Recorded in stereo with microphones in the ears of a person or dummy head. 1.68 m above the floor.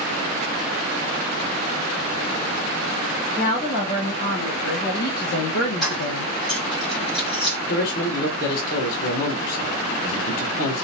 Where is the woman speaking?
40° left (ahead or behind), 1.9 m; by 6.3 s 85° left, 0.5 m.